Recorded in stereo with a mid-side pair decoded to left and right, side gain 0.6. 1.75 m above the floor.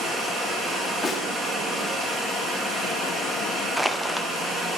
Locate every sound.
0.0 s running water: 30° right, 2.5 m
1.0 s a snare drum: 15° left, 1.4 m
3.8 s crushing: 10° right, 0.6 m